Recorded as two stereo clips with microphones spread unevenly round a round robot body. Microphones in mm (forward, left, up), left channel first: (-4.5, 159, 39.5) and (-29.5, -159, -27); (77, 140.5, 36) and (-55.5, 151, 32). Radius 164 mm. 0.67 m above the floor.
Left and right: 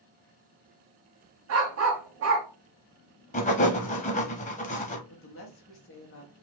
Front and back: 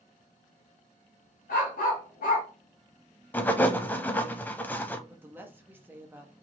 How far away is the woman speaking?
About 1.1 m.